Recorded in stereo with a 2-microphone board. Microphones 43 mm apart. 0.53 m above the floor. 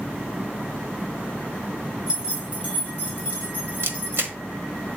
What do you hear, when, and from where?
2.1 s keys jangling: 20° right (ahead or behind), 2.5 m; by 4.3 s 45° right (ahead or behind), 3.5 m
3.8 s a camera shutter: 60° right (ahead or behind), 0.9 m